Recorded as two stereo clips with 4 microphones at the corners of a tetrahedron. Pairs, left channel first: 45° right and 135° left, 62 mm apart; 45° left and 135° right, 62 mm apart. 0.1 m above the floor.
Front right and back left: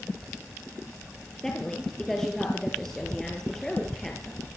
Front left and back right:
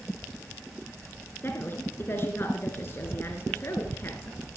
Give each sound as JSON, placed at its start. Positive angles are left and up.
{"t": 1.4, "sound": "a woman speaking", "azimuth_deg": 35, "distance_m": 2.0}